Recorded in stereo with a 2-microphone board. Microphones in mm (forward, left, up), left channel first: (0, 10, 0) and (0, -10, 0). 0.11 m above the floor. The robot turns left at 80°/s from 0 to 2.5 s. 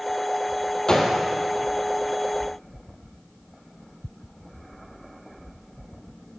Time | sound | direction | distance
0.9 | a gunshot | 30° left (ahead or behind) | 3 m